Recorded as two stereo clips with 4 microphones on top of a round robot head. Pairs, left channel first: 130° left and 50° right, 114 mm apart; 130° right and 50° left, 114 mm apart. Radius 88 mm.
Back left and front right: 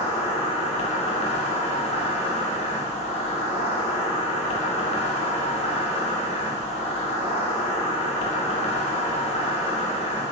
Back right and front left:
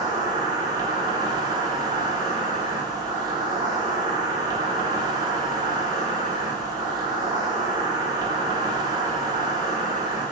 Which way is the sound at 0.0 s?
100° left.